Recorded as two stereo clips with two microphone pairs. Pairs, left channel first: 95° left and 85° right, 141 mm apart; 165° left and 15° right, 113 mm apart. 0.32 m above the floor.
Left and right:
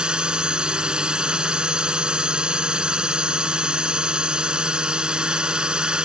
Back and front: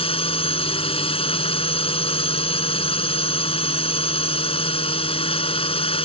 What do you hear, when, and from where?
0.0 s a drone: 165° right